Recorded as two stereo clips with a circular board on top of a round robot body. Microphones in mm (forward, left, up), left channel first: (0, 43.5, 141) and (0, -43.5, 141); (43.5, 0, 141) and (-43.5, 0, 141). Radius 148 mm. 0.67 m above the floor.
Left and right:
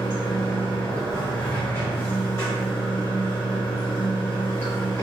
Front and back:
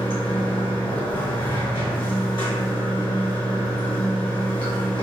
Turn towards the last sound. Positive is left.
turn(degrees=25)